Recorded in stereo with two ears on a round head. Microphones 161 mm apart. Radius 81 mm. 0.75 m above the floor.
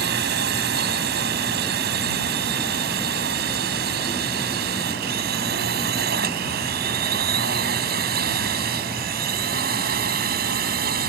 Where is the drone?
65° right (ahead or behind); by 11.1 s 60° right (ahead or behind).